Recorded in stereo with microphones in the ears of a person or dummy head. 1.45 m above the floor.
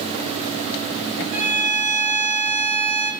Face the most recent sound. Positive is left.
turn(degrees=-55)  # may be behind; listen again after turning